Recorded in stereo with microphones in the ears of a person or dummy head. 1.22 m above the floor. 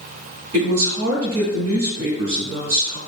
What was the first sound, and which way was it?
A woman speaking, 90° right.